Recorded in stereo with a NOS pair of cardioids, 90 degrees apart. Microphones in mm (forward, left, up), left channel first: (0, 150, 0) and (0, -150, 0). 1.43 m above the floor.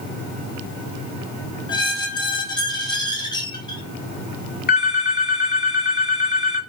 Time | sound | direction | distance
1.7 | a squeak | 15° left | 1.1 m
4.7 | a phone ringing | 30° left | 2.5 m